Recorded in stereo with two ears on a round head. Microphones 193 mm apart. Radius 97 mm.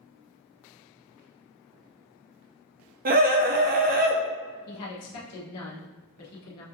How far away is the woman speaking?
About 1.1 m.